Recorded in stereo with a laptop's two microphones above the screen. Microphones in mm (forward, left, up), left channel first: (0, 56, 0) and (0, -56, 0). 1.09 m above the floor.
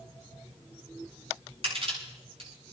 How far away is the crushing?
About 8 m.